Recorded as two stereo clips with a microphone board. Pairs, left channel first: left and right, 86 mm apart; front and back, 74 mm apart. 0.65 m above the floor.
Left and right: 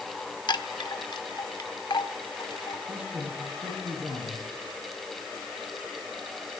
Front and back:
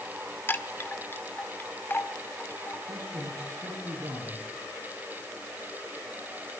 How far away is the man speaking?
About 8.5 m.